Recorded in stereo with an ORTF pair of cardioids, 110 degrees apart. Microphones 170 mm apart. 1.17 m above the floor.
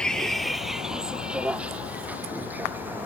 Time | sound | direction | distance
0.0 | a vehicle | 5° left | ?